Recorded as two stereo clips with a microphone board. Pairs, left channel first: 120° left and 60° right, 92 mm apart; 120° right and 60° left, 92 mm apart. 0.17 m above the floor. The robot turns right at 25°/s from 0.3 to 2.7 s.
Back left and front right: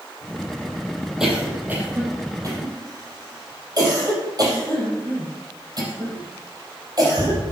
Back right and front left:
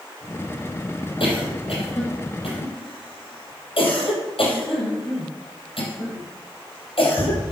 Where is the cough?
145° right, 4.5 m; by 7.5 s 105° right, 4.5 m.